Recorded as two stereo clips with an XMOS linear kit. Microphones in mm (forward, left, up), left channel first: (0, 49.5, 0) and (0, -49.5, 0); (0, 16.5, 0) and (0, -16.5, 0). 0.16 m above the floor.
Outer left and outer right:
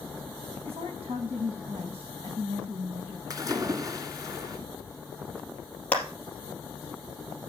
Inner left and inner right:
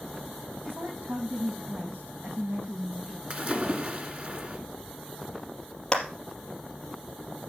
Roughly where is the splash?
Right.